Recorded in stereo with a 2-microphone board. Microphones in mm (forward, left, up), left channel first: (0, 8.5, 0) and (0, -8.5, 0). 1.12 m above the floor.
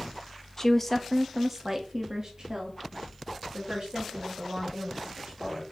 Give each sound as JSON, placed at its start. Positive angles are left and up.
{"t": 0.6, "sound": "a woman speaking", "side_deg": 25, "distance_m": 0.6}